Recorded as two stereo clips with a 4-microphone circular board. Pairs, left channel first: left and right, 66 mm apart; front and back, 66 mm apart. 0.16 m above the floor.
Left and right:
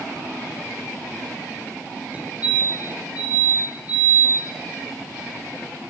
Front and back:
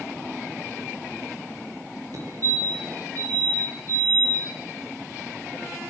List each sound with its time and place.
2.1 s a fire alarm: 155° right, 6.5 m